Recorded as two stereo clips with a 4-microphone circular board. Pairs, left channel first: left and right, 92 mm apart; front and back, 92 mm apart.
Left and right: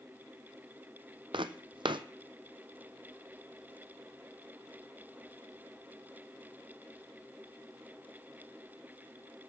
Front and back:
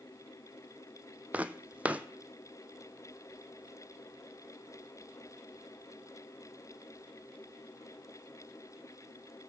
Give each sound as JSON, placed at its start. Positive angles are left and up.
{"t": 1.3, "sound": "footsteps", "azimuth_deg": -105, "distance_m": 0.6}